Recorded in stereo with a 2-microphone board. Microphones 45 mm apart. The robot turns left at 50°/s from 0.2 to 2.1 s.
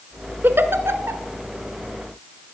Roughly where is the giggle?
Right.